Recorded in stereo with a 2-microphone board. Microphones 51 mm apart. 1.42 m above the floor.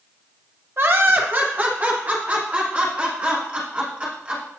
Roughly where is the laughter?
Right.